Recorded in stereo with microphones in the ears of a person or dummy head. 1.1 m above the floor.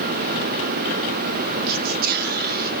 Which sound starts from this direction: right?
Whispering, at 1.7 s.